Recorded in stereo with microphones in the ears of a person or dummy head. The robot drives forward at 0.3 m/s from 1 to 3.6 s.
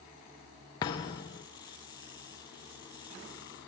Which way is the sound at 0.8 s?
20° left (ahead or behind).